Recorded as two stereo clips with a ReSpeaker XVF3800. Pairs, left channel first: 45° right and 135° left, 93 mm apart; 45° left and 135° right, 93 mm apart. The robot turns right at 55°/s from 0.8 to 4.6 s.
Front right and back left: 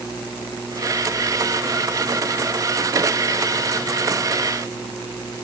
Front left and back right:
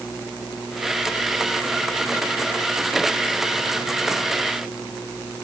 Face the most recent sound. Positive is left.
No sound to turn to.